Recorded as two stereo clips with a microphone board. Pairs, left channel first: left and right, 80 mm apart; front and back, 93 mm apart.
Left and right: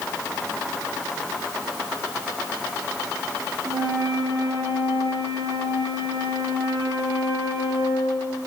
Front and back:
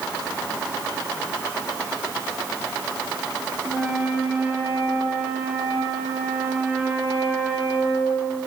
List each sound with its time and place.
3.6 s a flute: 105° right, 5 m